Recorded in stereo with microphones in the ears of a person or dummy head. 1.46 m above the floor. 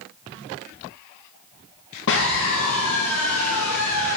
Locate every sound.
2.1 s a scream: 70° left (ahead or behind), 1.4 m; by 4.2 s 85° left, 2.5 m